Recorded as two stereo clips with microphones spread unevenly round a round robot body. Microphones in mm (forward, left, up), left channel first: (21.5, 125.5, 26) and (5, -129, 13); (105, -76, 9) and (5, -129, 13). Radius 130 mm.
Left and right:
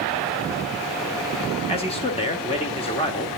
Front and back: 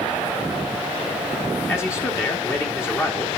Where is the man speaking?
45° left, 1.1 m.